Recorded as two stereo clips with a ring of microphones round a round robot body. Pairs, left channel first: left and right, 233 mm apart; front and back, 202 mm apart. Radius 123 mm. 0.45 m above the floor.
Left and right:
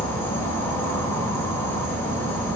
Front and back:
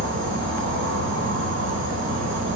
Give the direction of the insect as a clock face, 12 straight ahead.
6 o'clock.